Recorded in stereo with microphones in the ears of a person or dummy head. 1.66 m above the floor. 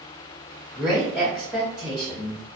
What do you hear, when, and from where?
0.7 s a woman speaking: centre (ahead or behind), 0.7 m